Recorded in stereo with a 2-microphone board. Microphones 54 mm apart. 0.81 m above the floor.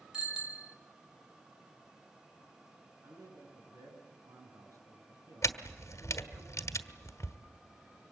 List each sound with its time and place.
0.1 s a bicycle bell: 10° right (ahead or behind), 2.5 m
3.0 s a man speaking: 85° right, 9 m
5.4 s a camera shutter: 70° left (ahead or behind), 1.7 m